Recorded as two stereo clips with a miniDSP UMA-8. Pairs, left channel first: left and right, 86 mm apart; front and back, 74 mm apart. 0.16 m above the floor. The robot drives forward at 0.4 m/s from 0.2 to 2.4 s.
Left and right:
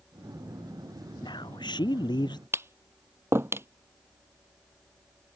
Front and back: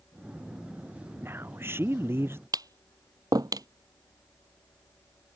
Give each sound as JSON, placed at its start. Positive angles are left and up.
{"t": 1.2, "sound": "a man speaking", "azimuth_deg": 120}
{"t": 2.5, "sound": "tapping", "azimuth_deg": -150}